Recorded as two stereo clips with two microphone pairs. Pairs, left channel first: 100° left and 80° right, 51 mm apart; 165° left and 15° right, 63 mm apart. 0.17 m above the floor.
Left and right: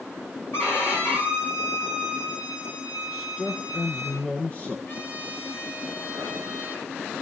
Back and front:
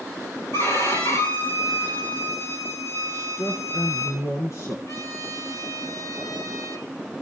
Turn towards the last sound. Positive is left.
turn(degrees=140)